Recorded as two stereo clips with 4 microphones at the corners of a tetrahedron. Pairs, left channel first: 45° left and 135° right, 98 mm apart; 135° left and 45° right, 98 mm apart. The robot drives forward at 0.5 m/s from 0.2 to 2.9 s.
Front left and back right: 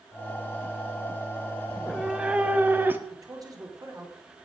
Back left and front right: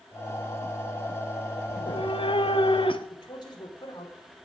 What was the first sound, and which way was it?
A cat meowing, 135° left.